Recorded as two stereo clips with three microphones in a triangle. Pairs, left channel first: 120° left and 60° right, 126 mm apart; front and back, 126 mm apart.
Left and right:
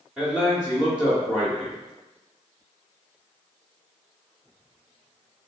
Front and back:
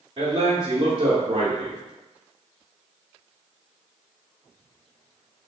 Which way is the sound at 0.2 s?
145° right.